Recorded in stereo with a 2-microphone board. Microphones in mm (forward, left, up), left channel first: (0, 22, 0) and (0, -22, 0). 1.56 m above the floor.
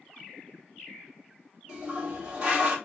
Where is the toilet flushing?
30° right (ahead or behind), 1.7 m.